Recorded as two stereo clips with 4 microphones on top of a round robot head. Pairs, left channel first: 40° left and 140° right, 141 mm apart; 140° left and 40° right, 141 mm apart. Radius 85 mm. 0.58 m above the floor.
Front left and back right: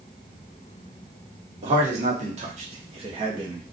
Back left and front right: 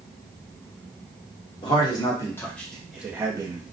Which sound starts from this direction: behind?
A man speaking, at 1.6 s.